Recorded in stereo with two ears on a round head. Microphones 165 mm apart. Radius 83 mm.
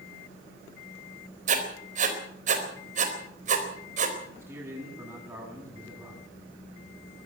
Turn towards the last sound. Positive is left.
turn(degrees=-15)  # may be behind; listen again after turning